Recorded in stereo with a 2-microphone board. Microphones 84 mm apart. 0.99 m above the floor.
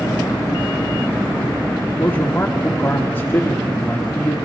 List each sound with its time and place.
2.0 s a man speaking: 25° left (ahead or behind), 2 m